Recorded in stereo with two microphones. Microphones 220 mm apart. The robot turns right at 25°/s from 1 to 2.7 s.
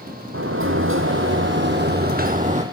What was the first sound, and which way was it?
A sliding door, 75° right.